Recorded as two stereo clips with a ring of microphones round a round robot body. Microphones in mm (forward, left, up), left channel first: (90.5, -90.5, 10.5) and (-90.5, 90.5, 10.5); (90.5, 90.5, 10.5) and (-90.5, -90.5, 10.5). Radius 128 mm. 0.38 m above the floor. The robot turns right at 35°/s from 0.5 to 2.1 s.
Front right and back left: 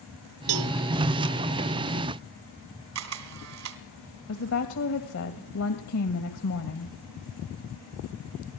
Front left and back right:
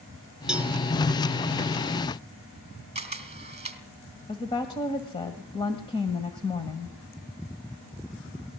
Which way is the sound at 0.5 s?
140° left.